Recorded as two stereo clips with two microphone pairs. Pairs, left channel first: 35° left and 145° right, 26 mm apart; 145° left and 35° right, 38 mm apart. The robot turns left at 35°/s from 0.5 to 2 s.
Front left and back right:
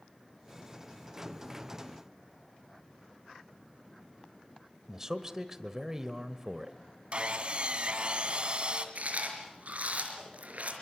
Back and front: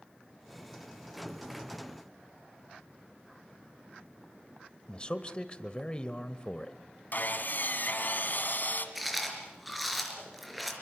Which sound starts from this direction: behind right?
Chewing, at 8.9 s.